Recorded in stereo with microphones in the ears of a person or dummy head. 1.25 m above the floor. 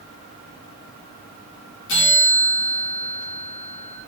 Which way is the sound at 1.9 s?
65° left (ahead or behind).